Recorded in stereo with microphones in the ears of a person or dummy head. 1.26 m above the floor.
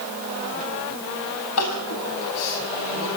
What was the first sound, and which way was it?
Crying, 80° left.